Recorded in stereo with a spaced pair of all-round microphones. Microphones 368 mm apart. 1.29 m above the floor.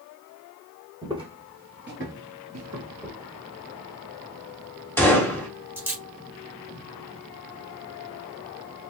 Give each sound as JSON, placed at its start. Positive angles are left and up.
{"t": 1.0, "sound": "footsteps", "side_deg": -10, "distance_m": 1.6}
{"t": 3.0, "sound": "a dropped coin", "side_deg": -5, "distance_m": 1.0}
{"t": 5.0, "sound": "a gunshot", "side_deg": 5, "distance_m": 1.3}